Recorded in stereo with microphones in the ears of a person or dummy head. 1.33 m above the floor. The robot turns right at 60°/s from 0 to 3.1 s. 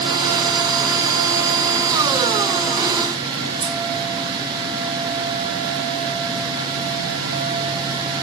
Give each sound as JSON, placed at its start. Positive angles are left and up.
{"t": 3.6, "sound": "scissors", "side_deg": -20, "distance_m": 1.1}